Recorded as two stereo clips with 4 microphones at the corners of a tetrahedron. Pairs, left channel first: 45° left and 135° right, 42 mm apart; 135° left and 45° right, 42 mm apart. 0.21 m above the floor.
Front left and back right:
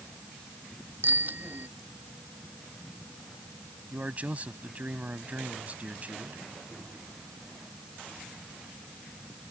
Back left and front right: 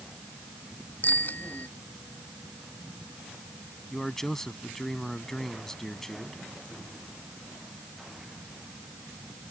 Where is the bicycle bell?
175° right.